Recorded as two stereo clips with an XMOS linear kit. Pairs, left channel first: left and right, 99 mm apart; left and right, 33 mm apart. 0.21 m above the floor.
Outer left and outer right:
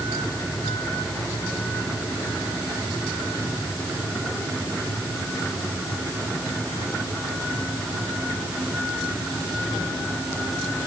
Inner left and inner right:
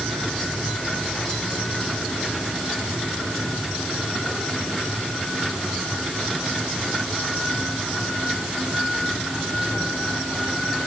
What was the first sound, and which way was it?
Only background noise.